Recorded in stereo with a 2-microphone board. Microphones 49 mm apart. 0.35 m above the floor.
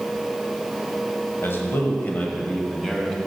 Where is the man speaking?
55° left (ahead or behind), 1.6 m; by 3.2 s 5° left (ahead or behind), 1.9 m.